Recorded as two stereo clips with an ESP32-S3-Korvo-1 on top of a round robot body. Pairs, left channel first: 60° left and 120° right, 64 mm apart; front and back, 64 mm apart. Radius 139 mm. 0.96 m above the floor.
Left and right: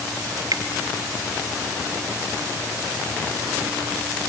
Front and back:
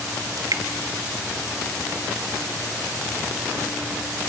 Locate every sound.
0.4 s dripping: 150° right, 1.8 m